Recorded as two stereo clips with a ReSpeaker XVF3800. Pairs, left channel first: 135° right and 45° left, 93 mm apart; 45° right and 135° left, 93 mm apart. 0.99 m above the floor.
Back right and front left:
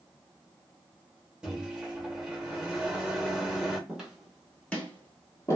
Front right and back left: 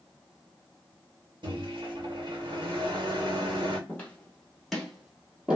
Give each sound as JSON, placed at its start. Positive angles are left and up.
{"t": 1.4, "sound": "a microwave", "azimuth_deg": 125, "distance_m": 1.1}
{"t": 3.9, "sound": "footsteps", "azimuth_deg": -15, "distance_m": 1.0}